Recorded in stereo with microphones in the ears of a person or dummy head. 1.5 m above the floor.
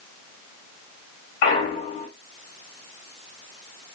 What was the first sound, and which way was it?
A clunk, 25° left (ahead or behind).